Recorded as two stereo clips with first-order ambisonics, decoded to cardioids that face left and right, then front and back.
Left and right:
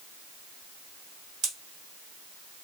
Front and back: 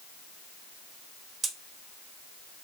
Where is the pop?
125° right, 1.4 m.